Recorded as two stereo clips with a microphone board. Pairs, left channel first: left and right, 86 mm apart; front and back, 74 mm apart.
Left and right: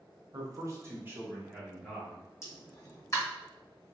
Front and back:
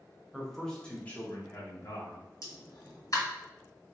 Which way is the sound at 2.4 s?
35° left.